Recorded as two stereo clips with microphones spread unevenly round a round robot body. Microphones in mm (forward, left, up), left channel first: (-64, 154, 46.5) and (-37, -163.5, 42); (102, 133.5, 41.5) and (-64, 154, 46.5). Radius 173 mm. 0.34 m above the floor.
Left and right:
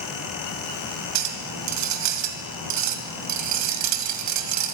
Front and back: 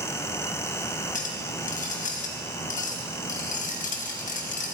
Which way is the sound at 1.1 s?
55° right.